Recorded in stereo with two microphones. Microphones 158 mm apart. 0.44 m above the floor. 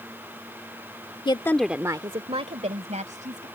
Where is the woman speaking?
30° left (ahead or behind); by 3.5 s 55° right (ahead or behind).